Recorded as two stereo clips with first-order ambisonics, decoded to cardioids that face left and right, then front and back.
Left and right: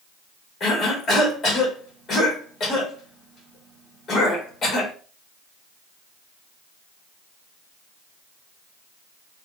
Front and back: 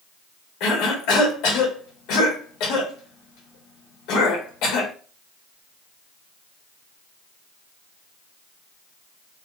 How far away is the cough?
About 1.2 m.